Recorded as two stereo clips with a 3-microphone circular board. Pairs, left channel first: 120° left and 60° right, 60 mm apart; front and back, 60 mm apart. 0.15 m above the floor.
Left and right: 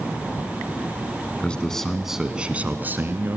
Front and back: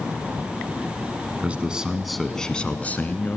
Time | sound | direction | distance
1.4 | a man speaking | 160° left | 1.4 m